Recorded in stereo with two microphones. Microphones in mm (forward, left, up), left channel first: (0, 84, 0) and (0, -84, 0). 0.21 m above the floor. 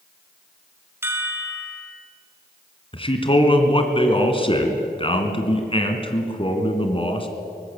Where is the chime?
15° right (ahead or behind), 1.9 m.